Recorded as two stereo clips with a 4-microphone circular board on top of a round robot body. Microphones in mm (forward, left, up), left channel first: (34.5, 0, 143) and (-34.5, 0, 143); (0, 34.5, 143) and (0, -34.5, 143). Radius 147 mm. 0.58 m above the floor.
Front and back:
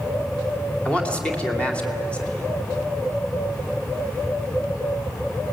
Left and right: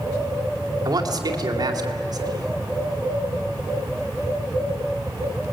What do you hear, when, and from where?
0.8 s a man speaking: 70° right, 2.5 m